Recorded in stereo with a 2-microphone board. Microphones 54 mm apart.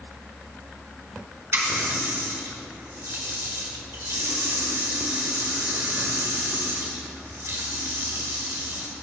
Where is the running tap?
55° right (ahead or behind), 1.1 m.